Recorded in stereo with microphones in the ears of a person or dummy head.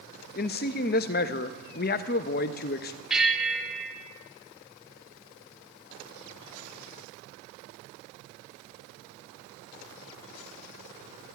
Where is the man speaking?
50° left (ahead or behind), 0.6 m.